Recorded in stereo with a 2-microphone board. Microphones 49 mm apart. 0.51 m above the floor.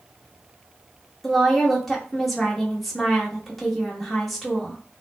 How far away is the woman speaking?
About 1.0 m.